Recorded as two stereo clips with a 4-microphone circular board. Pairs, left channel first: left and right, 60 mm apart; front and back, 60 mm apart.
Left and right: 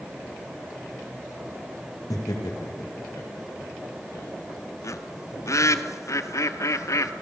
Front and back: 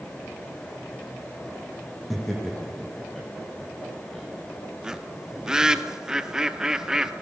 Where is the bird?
100° left, 0.9 m.